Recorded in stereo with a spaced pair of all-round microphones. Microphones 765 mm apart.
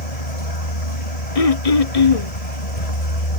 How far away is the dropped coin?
No dropped coin in this recording.